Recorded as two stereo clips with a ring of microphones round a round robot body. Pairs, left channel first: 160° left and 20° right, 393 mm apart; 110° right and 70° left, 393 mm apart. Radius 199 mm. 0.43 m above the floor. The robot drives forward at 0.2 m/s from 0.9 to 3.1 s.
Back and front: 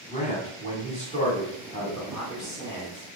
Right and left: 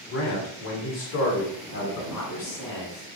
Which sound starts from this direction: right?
A man speaking, at 2.1 s.